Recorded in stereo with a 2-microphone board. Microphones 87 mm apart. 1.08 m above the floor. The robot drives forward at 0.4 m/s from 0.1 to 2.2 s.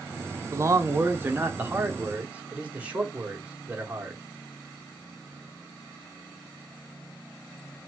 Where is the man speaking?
40° right (ahead or behind), 0.5 m; by 4.2 s 15° right (ahead or behind), 1.1 m.